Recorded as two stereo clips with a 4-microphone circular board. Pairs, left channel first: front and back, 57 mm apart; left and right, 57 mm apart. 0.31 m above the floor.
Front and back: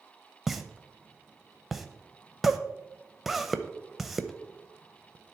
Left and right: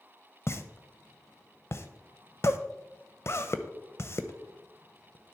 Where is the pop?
95° left, 0.7 m.